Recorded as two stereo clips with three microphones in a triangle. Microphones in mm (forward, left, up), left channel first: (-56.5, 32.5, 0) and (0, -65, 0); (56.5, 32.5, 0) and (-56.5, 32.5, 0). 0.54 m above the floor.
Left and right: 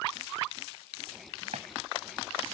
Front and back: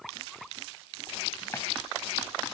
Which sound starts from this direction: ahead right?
A running tap, at 1.5 s.